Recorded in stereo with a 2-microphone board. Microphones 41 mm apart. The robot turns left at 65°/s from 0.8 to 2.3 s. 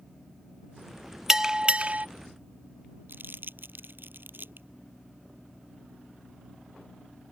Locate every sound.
1.3 s a bell: 15° right; by 2.1 s 65° right
3.1 s crumpling: 60° right (ahead or behind)